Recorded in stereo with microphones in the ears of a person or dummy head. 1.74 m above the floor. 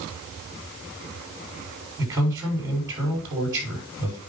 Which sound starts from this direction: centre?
A man speaking, at 2.0 s.